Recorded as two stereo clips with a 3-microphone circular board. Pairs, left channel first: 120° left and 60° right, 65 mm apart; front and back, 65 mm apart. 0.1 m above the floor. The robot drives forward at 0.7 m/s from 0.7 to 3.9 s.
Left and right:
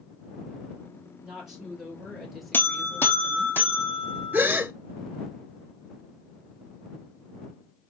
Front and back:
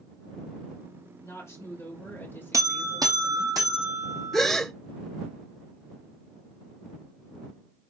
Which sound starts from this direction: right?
A gasp, at 4.3 s.